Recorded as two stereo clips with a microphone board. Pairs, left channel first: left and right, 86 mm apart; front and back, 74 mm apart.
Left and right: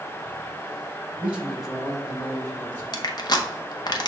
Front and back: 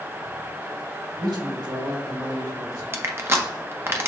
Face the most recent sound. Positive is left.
turn(degrees=125)